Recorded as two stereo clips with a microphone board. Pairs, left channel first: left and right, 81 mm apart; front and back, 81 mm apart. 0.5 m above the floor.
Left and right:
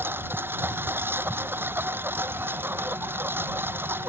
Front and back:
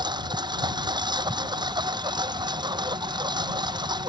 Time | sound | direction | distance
0.0 | a lawn mower | 150° right | ?